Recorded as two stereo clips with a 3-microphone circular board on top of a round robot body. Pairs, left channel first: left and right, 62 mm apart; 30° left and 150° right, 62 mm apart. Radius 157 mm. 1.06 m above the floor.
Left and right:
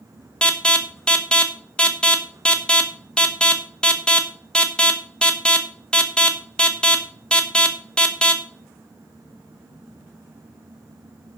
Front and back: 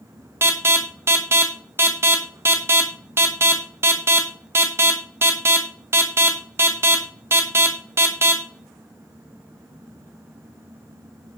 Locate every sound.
0.4 s an alarm: 165° left, 1.7 m